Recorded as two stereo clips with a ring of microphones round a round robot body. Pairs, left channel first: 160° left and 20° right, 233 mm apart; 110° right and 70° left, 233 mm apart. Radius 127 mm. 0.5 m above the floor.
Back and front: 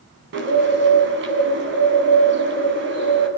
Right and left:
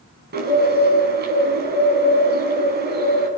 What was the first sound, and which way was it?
A bird, 20° left.